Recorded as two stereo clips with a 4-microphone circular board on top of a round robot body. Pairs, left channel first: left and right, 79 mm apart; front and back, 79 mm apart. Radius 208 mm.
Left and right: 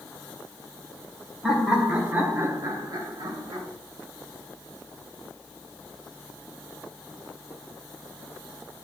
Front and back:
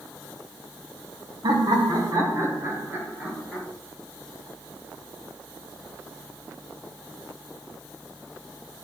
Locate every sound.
1.4 s laughter: straight behind, 2.0 m; by 3.6 s 105° right, 2.5 m